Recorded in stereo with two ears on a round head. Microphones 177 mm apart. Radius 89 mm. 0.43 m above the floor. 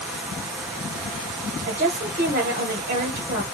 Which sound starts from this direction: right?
A woman speaking, at 1.7 s.